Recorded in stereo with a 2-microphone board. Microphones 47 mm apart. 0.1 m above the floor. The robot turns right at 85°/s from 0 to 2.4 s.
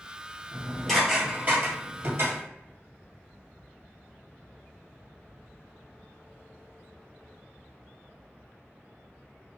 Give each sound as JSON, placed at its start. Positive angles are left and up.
{"t": 0.5, "sound": "dishes clattering", "side_deg": 35, "distance_m": 1.5}